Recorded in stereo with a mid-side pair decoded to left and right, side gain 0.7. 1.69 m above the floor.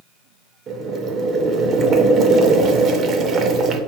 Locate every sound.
0.7 s boiling: 45° right, 0.6 m